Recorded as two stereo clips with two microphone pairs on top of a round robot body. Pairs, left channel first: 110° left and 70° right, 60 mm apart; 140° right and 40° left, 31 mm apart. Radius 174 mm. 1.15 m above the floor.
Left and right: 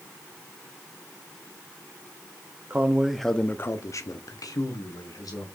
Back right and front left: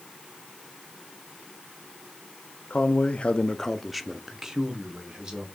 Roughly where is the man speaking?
Behind right.